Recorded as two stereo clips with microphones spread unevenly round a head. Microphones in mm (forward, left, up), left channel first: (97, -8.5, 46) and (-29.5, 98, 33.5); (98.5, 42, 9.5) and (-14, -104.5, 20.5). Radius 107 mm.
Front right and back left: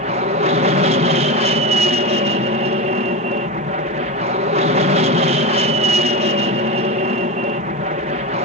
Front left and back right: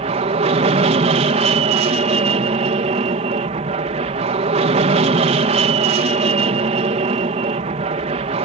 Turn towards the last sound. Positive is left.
turn(degrees=180)